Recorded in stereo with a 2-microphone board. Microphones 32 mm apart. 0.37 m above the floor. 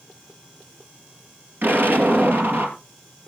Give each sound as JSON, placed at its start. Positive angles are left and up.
{"t": 1.6, "sound": "an explosion", "side_deg": -80, "distance_m": 3.0}